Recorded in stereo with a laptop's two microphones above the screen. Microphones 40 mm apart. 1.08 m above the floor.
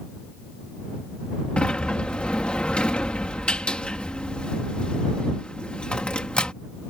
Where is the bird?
I don't hear a bird.